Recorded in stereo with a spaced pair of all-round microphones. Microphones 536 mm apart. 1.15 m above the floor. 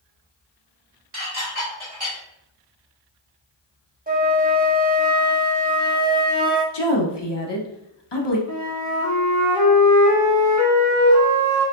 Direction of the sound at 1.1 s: 80° right.